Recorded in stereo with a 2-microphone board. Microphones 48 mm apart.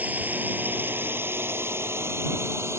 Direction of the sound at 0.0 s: 30° right (ahead or behind).